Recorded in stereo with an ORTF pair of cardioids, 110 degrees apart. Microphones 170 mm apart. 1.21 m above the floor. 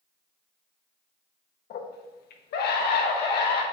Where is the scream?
65° left, 1.0 m.